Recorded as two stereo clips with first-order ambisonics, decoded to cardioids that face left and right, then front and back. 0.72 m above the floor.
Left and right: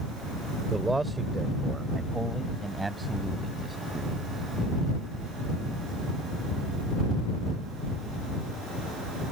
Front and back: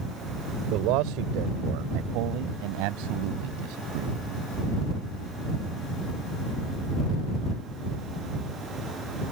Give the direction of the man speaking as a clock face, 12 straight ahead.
6 o'clock.